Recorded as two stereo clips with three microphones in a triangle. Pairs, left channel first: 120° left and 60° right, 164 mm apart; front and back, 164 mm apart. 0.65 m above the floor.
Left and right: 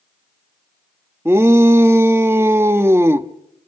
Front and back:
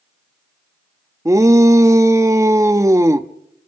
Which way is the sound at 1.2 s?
120° right.